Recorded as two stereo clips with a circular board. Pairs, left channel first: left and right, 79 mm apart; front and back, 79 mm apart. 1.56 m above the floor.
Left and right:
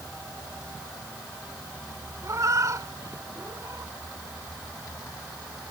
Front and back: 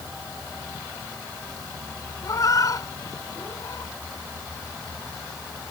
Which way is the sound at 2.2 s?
40° right.